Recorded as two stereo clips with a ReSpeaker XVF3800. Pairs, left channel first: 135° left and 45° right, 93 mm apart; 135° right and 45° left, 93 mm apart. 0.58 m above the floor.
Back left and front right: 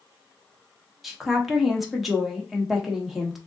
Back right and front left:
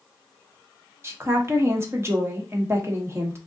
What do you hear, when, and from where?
1.0 s a woman speaking: 40° left, 0.9 m